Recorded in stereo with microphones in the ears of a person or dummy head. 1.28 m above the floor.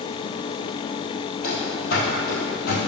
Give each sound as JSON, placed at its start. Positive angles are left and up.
{"t": 1.4, "sound": "running footsteps", "side_deg": 50, "distance_m": 2.5}